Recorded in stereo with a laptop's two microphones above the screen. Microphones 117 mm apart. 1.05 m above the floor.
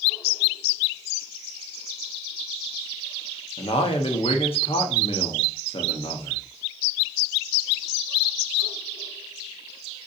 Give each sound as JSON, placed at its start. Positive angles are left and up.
{"t": 3.6, "sound": "a man speaking", "side_deg": 55, "distance_m": 0.9}